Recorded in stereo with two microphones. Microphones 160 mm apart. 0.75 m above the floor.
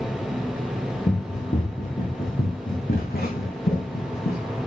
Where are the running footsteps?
45° left (ahead or behind), 3 m; by 4.4 s 75° left (ahead or behind), 3 m.